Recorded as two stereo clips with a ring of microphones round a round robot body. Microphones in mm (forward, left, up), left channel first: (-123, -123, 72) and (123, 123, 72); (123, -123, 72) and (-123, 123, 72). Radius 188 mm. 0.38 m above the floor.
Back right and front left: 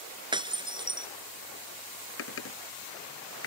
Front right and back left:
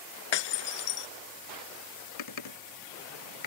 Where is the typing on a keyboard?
80° right.